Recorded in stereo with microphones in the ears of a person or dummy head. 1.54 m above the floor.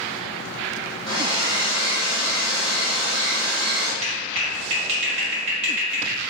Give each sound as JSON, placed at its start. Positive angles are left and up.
{"t": 1.1, "sound": "a hair dryer", "side_deg": -30, "distance_m": 1.8}
{"t": 4.0, "sound": "a clap", "side_deg": -35, "distance_m": 1.6}